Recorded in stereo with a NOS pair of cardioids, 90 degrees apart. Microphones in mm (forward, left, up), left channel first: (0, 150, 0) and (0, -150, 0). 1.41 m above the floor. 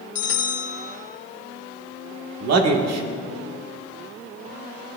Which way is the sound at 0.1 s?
50° left.